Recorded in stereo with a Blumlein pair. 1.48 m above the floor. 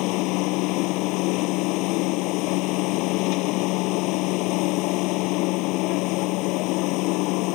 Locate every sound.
0.0 s a machine running: 40° left